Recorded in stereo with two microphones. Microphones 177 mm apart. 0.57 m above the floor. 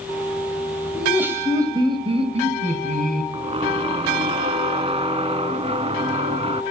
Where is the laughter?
5° right (ahead or behind), 3.5 m; by 3.2 s 55° right (ahead or behind), 4 m.